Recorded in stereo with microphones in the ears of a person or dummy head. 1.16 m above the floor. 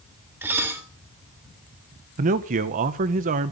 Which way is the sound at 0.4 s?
10° right (ahead or behind).